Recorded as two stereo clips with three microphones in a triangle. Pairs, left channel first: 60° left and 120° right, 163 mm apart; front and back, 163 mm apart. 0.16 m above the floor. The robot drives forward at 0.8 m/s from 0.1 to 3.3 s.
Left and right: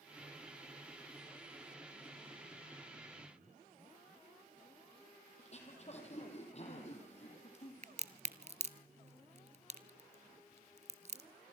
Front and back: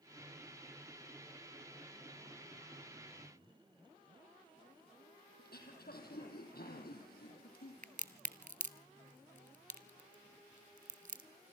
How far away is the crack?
About 0.8 m.